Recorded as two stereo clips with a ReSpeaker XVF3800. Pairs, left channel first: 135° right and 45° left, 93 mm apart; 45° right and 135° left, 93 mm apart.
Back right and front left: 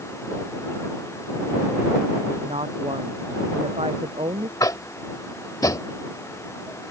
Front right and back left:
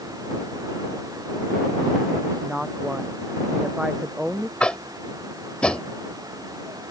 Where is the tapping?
120° right.